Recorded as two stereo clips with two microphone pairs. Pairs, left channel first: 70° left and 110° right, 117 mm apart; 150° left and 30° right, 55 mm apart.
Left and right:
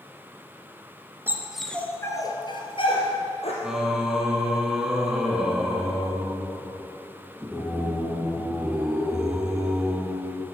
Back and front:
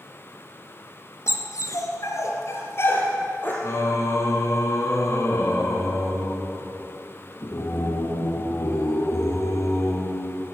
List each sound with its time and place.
1.3 s a dog barking: 175° left, 1.6 m; by 3.5 s 100° left, 3.5 m
3.6 s singing: 165° left, 2 m